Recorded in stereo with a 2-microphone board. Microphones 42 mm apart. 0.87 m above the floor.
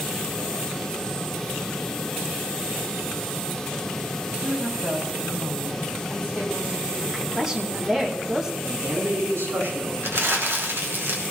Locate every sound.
4.4 s a woman speaking: 40° right (ahead or behind), 5 m
7.1 s a woman speaking: 15° right (ahead or behind), 2 m
8.6 s a man speaking: 70° right (ahead or behind), 7.5 m
10.0 s crumpling: 75° right (ahead or behind), 2.5 m